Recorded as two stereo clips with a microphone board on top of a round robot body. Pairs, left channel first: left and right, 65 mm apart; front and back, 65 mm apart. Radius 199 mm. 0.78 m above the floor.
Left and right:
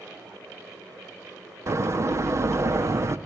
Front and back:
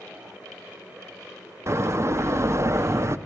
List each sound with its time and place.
1.7 s a door slam: 130° right, 1.2 m